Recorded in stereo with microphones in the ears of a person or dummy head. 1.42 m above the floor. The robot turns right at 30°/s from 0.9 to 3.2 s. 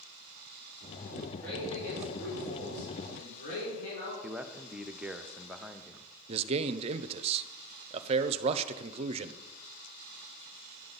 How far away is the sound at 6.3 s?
About 0.6 m.